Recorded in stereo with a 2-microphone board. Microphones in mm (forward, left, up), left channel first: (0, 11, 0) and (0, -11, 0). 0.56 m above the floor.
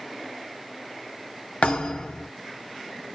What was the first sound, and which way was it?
A thud, 80° left.